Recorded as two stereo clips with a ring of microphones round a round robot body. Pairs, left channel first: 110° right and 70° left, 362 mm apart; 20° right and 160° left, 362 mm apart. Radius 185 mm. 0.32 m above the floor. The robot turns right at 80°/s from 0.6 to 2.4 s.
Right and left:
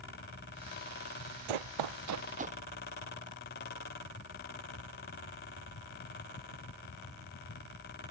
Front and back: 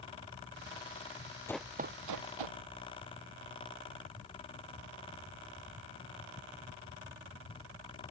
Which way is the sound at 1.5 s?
60° left.